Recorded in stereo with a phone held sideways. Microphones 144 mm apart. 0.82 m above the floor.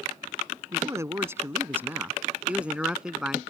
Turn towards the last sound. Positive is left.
turn(degrees=-5)  # may be behind; listen again after turning